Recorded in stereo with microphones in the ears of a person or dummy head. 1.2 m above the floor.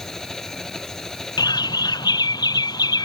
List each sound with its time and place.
0.0 s an engine running: 5° left (ahead or behind)
1.4 s a bird: 20° left (ahead or behind)